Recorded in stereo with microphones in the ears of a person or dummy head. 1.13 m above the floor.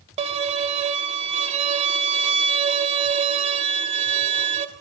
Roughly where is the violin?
Right.